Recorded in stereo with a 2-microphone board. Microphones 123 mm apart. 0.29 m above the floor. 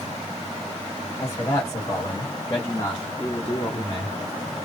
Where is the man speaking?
25° left (ahead or behind), 1.3 m; by 4.2 s 30° left (ahead or behind), 2 m.